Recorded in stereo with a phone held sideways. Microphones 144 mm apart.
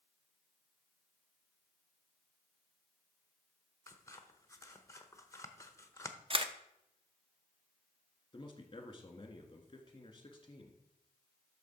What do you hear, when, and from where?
3.9 s scissors: 20° left (ahead or behind), 0.8 m
6.3 s a camera shutter: 40° right (ahead or behind), 0.6 m
8.3 s a man speaking: 35° left (ahead or behind), 1.6 m